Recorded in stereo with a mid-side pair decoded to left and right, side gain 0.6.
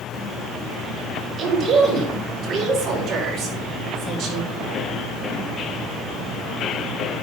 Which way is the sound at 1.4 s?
45° right.